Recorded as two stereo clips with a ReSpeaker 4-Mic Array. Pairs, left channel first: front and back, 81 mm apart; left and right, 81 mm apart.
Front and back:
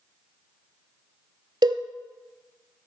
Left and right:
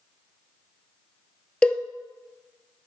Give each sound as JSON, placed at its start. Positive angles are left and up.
{"t": 1.6, "sound": "a cowbell", "azimuth_deg": 165, "distance_m": 0.7}